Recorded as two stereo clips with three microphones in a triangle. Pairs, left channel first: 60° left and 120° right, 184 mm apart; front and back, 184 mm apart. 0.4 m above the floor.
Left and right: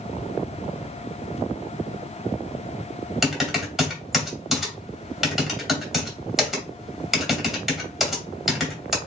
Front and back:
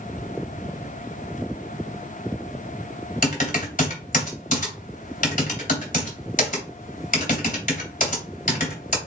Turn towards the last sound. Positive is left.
turn(degrees=-30)